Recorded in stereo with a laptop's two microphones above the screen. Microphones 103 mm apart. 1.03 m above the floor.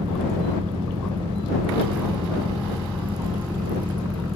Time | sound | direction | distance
0.0 | a fan | 65° right (ahead or behind) | ?